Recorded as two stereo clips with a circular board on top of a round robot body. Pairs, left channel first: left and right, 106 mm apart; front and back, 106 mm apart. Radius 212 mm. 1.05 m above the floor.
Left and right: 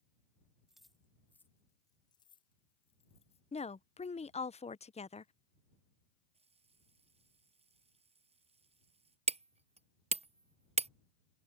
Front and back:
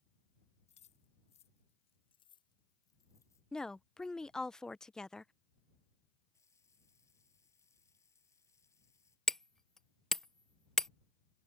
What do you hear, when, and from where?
0.7 s keys jangling: 5° right; by 3.4 s 65° left
3.5 s a woman speaking: 85° left
6.3 s a running tap: 65° right
9.3 s hammering: 85° right